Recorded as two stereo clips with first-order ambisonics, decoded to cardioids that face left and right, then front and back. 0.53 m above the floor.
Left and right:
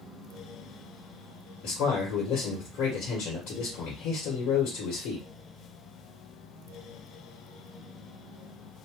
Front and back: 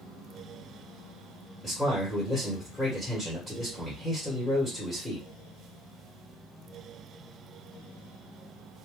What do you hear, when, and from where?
1.6 s a man speaking: 95° left, 1.5 m